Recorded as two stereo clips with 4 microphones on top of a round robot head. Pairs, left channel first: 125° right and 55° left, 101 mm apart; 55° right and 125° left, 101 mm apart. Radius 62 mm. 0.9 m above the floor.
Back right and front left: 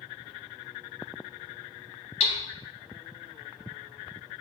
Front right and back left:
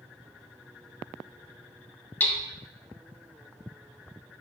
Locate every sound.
2.2 s hammering: 130° right, 0.6 m